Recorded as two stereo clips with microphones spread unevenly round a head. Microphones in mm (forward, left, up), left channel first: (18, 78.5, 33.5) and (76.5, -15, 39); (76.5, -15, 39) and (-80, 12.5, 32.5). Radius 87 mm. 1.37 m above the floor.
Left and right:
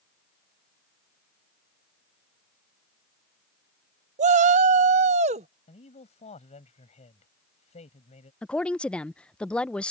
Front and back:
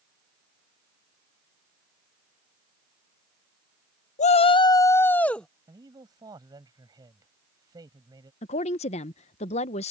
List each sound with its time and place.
4.2 s a shout: 55° right; by 5.5 s 95° right
5.7 s a man speaking: 100° left
8.4 s a woman speaking: 40° left